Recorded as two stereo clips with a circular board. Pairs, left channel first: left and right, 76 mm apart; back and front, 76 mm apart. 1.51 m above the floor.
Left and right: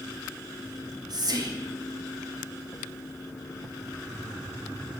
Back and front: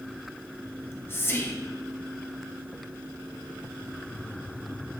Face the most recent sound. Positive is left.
turn(degrees=-120)